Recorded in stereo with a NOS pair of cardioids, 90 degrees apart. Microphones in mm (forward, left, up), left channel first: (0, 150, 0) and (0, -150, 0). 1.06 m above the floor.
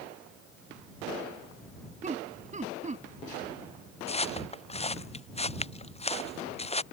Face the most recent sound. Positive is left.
turn(degrees=20)